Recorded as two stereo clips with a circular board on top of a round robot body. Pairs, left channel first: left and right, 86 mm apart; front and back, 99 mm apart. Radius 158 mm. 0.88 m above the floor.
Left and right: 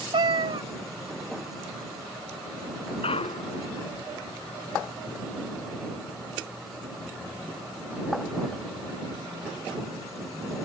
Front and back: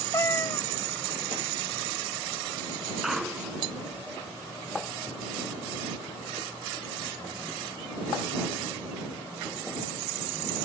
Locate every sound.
0.1 s a cat meowing: 65° right
3.0 s a clunk: 95° left